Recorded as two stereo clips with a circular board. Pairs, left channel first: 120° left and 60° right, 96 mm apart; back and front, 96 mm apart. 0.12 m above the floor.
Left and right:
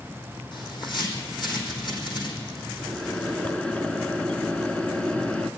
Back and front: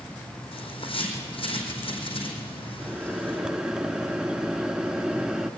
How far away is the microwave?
About 1.1 m.